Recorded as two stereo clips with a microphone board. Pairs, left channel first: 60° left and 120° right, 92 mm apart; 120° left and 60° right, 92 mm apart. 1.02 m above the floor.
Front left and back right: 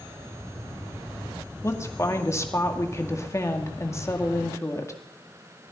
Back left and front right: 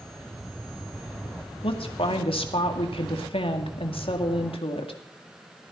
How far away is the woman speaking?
About 2 m.